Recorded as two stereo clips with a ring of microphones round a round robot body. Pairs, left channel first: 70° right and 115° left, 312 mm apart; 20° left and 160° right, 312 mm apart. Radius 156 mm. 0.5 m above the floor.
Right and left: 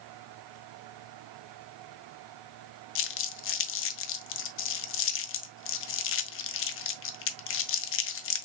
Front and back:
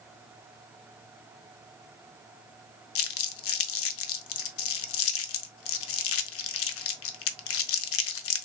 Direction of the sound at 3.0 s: 20° right.